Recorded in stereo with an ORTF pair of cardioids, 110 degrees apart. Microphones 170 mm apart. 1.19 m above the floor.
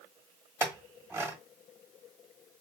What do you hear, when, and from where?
0.6 s a clink: 15° right, 1.3 m